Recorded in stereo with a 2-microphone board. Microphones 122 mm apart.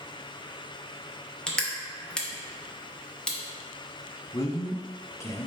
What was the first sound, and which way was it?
Crushing, 5° left (ahead or behind).